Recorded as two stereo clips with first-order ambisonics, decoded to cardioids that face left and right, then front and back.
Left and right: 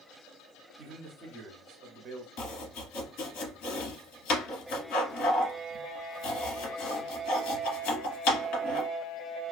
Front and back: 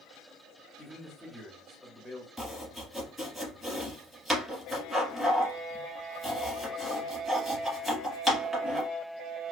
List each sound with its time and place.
0.8 s a man speaking: 85° right, 0.7 m
2.4 s chopping: 105° left, 1.0 m